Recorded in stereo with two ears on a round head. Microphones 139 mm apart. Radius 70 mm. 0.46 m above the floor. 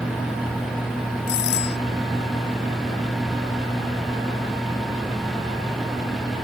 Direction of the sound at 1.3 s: 80° left.